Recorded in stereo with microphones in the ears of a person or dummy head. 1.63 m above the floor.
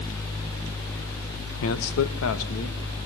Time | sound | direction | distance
1.6 | a man speaking | 80° left | 1.5 m